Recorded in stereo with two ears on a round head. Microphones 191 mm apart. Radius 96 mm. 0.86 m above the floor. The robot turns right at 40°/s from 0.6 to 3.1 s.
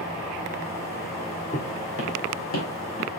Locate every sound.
1.5 s footsteps: 35° left (ahead or behind), 1.8 m; by 3.1 s 50° left (ahead or behind), 3 m